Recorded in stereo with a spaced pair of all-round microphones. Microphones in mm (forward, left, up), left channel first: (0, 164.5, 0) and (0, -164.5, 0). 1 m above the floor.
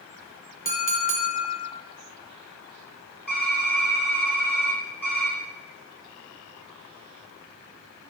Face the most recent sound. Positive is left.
turn(degrees=70)  # may be behind; listen again after turning